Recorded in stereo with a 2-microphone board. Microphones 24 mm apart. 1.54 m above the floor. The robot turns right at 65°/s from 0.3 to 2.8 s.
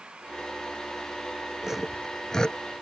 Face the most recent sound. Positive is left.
turn(degrees=50)  # may be behind; listen again after turning